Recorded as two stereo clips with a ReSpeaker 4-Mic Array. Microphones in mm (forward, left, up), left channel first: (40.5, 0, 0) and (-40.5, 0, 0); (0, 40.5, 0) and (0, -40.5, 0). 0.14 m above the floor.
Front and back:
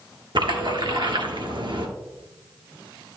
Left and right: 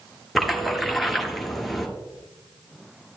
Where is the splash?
Straight behind, 1.3 m.